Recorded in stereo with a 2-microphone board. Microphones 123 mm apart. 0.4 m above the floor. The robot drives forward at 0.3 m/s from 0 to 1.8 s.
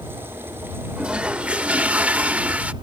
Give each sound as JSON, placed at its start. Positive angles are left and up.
{"t": 1.0, "sound": "a toilet flushing", "side_deg": -10}